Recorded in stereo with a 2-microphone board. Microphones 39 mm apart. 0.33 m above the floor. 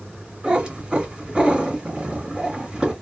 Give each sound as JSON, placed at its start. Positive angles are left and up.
{"t": 0.4, "sound": "a cat meowing", "side_deg": -20, "distance_m": 1.8}